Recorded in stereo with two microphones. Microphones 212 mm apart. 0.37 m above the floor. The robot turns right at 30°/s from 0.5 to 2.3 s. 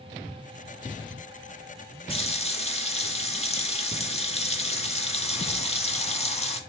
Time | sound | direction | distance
2.1 | a running tap | 25° left (ahead or behind) | 0.6 m